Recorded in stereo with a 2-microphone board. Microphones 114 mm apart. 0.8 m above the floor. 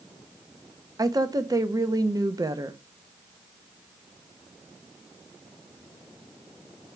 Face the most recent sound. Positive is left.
turn(degrees=-30)  # may be behind; listen again after turning